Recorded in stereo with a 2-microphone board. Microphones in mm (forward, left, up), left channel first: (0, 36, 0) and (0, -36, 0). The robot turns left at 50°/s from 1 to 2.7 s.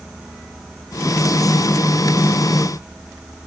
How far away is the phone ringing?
I don't hear a phone ringing.